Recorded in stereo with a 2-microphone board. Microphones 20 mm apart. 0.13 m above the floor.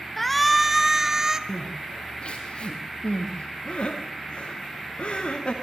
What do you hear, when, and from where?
0.2 s a shout: 10° left (ahead or behind), 1.5 m; by 1.4 s 25° right (ahead or behind), 2 m
1.5 s crying: 55° left (ahead or behind), 6 m